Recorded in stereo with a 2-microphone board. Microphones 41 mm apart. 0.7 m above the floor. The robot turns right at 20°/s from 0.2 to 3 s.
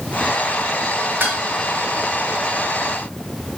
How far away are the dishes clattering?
About 1.3 m.